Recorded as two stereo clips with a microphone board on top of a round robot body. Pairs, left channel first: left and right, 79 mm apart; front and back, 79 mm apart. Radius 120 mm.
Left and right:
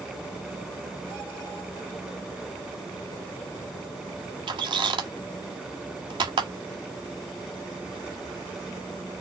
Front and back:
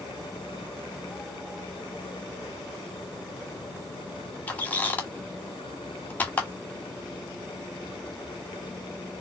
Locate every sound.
4.5 s a squeak: 70° right, 1.2 m